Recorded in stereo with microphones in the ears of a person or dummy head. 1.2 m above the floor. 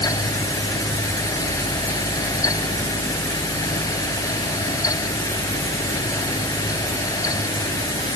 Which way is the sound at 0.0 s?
15° left (ahead or behind).